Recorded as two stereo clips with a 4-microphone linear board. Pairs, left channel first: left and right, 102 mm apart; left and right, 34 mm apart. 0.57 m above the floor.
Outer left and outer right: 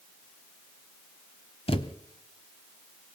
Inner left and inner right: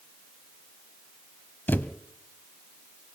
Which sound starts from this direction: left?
A thud, at 1.7 s.